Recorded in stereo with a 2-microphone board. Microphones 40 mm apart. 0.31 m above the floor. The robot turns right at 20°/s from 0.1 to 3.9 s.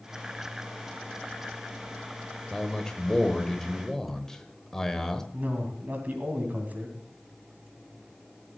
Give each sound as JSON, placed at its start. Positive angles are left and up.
{"t": 2.5, "sound": "a man speaking", "side_deg": 15, "distance_m": 1.1}
{"t": 5.3, "sound": "a man speaking", "side_deg": -50, "distance_m": 2.5}